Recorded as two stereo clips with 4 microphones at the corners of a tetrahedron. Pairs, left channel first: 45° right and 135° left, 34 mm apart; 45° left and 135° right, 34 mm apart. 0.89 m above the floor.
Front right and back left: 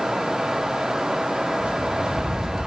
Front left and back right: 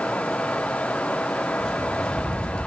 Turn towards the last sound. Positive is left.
turn(degrees=45)